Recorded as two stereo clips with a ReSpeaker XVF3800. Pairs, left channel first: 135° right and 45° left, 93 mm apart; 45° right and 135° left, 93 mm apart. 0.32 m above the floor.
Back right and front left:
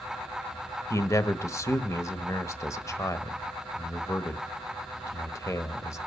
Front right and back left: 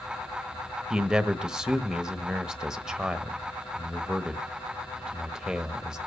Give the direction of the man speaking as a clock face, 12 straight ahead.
5 o'clock.